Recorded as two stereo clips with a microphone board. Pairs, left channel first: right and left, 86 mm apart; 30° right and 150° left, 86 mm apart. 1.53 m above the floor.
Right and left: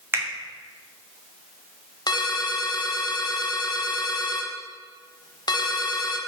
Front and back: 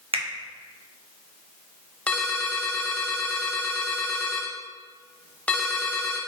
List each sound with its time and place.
0.1 s a finger snap: 155° left, 0.8 m
2.1 s a ringtone: 100° right, 0.6 m